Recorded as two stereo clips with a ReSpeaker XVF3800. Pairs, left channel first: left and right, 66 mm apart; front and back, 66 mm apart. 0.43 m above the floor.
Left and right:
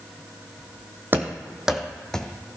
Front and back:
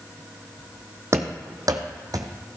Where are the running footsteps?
140° right, 0.9 m; by 2.3 s 170° left, 1.1 m.